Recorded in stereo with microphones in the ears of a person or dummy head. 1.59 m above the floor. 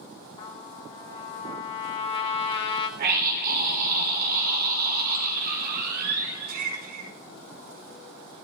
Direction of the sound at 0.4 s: 25° left (ahead or behind).